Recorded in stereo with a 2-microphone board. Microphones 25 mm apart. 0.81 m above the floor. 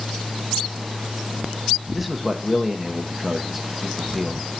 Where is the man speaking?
5° right (ahead or behind), 1.0 m.